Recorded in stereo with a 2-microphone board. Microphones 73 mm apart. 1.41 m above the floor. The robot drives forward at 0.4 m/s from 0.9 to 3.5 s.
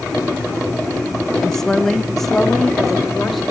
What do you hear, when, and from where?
1.4 s a woman speaking: 5° left (ahead or behind), 0.6 m